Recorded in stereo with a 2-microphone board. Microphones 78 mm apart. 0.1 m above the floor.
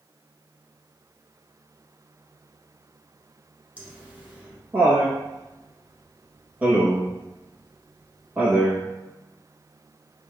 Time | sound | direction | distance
3.8 | laughter | 20° right (ahead or behind) | 1.1 m